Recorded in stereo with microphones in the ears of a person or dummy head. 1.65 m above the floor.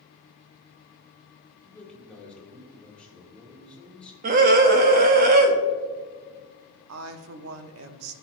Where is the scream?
50° right (ahead or behind), 1.0 m.